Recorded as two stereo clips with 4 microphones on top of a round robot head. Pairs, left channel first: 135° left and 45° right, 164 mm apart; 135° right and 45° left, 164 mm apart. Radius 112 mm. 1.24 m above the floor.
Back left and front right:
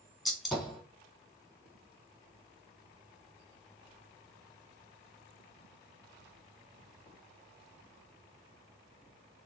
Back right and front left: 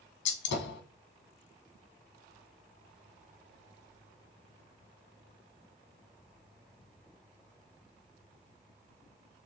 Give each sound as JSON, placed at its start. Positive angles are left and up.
{"t": 0.2, "sound": "a gunshot", "azimuth_deg": -135, "distance_m": 1.1}